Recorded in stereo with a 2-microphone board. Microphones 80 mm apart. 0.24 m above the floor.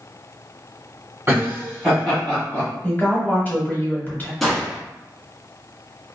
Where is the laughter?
35° right (ahead or behind), 1.6 m; by 2.7 s 25° left (ahead or behind), 1.6 m.